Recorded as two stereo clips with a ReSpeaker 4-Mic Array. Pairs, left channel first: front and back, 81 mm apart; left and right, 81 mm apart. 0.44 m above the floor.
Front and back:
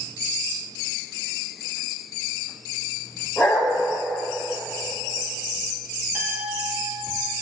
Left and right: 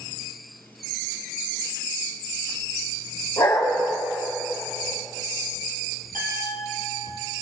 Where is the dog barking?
95° left, 7 m.